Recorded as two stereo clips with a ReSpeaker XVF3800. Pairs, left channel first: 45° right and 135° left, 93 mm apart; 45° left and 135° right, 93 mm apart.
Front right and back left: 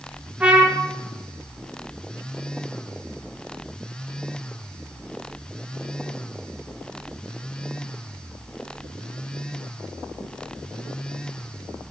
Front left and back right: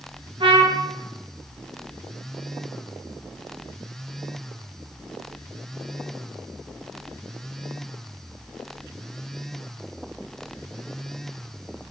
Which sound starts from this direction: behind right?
A trumpet, at 0.4 s.